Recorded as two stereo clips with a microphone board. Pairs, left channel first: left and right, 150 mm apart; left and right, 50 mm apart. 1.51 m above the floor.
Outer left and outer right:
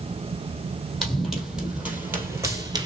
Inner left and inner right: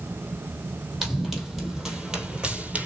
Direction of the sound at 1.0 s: Centre (ahead or behind).